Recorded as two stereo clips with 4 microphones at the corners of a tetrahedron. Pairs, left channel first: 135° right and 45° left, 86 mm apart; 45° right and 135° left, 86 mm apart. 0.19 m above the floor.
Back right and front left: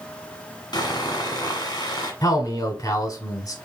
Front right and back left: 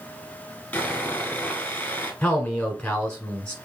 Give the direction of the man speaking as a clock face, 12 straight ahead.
4 o'clock.